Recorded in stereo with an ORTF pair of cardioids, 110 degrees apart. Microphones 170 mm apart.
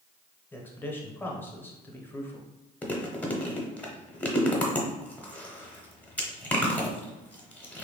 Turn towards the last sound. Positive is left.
turn(degrees=10)